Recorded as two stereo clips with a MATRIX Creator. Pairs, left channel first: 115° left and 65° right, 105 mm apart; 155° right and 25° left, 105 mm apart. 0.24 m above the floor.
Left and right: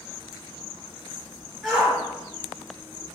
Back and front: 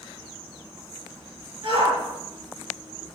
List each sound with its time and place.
1.6 s a shout: 20° left, 2.5 m